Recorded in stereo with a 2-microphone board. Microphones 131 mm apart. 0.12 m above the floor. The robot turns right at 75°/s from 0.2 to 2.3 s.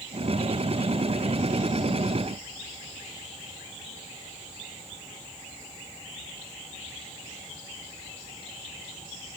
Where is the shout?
I don't hear a shout.